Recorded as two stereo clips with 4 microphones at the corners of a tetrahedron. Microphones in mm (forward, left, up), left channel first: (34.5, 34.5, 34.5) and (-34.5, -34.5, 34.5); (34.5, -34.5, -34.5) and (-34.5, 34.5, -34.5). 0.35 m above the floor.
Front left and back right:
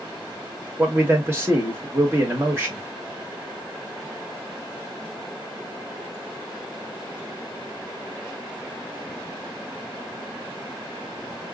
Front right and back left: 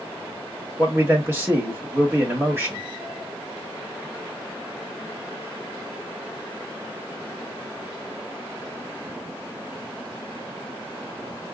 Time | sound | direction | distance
0.8 | a man speaking | straight behind | 1.6 m